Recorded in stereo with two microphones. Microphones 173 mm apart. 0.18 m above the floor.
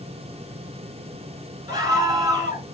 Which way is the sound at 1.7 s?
20° right (ahead or behind).